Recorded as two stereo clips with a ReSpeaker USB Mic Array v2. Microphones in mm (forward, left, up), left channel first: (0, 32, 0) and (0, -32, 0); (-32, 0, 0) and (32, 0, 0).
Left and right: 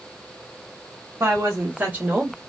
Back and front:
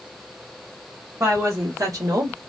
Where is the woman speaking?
40° right, 1.4 m; by 2.4 s 10° right, 1.1 m.